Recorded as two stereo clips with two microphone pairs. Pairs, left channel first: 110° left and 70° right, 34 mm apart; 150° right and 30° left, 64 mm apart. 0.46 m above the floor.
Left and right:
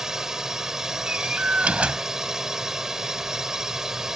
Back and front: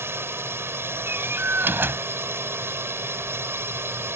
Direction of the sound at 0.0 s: Straight ahead.